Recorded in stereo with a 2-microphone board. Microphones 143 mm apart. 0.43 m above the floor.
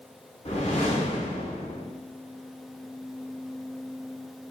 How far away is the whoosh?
About 1.1 m.